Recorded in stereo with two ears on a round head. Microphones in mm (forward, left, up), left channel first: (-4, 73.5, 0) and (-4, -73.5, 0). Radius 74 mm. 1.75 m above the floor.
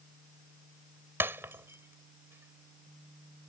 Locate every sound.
1.2 s breaking glass: 15° right (ahead or behind)